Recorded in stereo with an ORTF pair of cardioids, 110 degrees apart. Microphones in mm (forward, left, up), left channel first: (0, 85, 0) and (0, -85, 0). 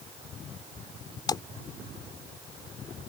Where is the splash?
25° left.